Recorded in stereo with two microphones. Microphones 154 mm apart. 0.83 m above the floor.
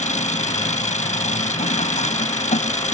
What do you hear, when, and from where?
0.0 s an engine running: 50° left (ahead or behind)